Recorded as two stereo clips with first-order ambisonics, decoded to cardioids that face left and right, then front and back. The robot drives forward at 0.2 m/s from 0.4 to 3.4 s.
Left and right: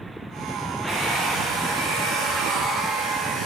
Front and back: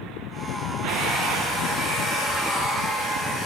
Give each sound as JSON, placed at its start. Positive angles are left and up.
{"t": 0.9, "sound": "a hair dryer", "azimuth_deg": -100, "distance_m": 4.0}